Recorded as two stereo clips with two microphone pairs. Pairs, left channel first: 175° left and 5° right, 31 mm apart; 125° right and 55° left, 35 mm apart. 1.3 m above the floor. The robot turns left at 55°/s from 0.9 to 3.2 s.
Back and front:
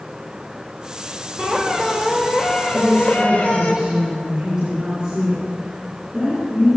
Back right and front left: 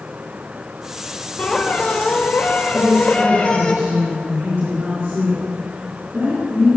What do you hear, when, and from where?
1.4 s a squeak: 50° right, 2 m; by 3.7 s 150° right, 2 m
2.7 s a woman speaking: 70° left, 4.5 m; by 6.8 s 45° left, 4.5 m